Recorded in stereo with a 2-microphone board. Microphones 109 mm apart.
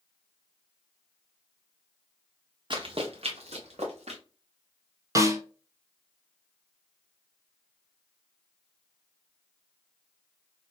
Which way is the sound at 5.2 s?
30° right (ahead or behind).